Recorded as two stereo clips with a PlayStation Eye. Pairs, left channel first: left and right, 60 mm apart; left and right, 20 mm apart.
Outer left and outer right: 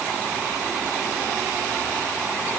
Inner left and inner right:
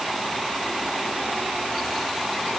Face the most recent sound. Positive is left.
No sound to turn to.